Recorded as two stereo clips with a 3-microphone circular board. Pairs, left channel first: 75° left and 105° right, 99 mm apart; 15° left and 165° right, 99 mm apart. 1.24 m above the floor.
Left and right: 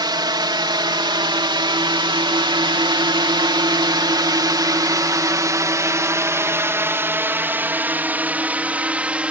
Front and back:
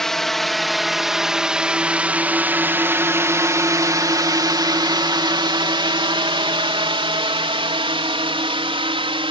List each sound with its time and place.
0.0 s a drone: 70° right; by 9.3 s straight behind